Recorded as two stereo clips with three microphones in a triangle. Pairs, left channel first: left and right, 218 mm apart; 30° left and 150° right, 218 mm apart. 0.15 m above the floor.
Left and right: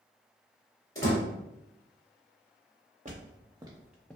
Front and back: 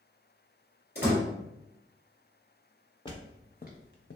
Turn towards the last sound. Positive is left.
turn(degrees=10)